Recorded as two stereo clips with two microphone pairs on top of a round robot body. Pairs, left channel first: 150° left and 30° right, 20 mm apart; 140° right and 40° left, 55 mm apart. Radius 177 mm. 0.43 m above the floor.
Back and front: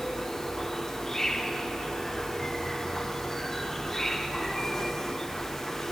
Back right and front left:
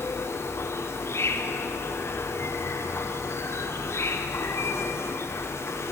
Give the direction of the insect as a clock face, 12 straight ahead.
4 o'clock.